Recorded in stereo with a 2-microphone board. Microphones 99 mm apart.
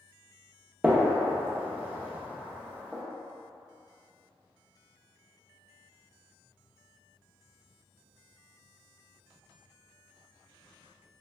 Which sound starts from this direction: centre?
A gunshot, at 0.8 s.